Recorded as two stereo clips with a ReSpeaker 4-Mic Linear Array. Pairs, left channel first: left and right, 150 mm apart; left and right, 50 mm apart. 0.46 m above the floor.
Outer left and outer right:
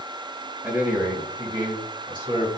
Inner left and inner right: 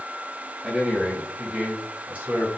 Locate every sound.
0.6 s a man speaking: 15° right (ahead or behind), 3 m; by 2.5 s 35° right (ahead or behind), 3 m